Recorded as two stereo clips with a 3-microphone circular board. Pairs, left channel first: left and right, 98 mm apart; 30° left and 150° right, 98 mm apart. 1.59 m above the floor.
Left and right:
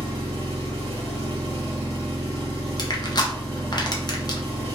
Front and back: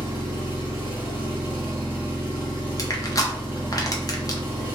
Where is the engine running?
80° right, 1.5 m.